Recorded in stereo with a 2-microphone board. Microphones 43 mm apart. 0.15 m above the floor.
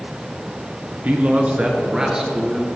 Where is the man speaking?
45° right (ahead or behind), 2.0 m; by 2.7 s 10° right (ahead or behind), 3 m.